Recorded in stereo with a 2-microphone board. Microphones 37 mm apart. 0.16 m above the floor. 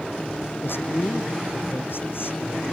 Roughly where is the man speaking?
Left.